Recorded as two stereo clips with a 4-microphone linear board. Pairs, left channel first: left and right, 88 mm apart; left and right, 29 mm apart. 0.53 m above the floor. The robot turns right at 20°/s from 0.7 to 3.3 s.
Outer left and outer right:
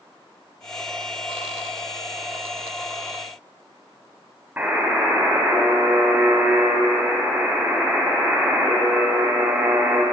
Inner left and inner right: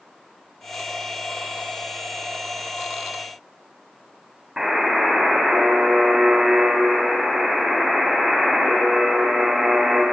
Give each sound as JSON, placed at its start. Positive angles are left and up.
{"t": 4.6, "sound": "a buzzer", "side_deg": -20, "distance_m": 3.0}